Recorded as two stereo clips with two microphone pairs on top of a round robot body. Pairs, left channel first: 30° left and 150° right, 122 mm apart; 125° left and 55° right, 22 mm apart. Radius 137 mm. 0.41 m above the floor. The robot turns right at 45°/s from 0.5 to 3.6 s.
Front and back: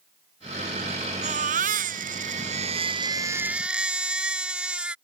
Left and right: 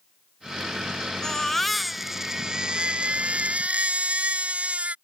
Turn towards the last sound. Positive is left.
turn(degrees=-65)